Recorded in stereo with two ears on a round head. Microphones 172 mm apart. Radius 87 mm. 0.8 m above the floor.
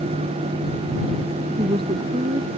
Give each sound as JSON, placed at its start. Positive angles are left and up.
{"t": 1.6, "sound": "a woman speaking", "side_deg": -25}